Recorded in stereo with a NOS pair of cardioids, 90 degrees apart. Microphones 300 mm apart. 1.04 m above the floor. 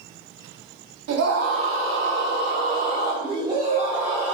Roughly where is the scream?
Ahead right.